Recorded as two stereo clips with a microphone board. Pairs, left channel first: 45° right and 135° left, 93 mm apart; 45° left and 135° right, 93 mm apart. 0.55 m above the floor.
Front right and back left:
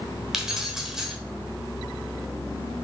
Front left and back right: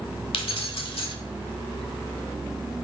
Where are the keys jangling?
50° left, 1.1 m.